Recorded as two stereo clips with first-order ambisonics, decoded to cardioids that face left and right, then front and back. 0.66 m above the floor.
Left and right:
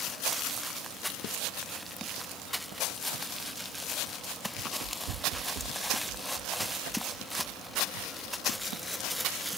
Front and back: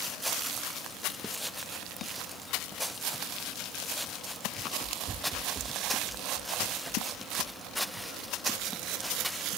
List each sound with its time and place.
4.6 s running footsteps: 110° right; by 9.3 s 115° right